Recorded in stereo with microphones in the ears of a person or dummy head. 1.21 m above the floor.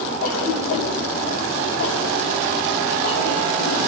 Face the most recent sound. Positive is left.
turn(degrees=85)